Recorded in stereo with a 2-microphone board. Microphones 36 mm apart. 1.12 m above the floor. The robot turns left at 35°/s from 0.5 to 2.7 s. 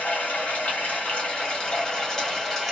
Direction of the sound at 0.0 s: 85° left.